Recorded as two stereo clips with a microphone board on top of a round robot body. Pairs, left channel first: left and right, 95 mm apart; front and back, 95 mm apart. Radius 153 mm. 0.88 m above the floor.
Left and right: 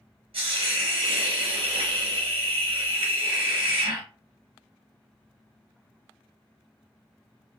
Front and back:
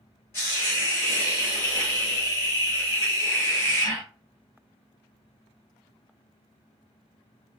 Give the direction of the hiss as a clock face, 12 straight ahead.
2 o'clock.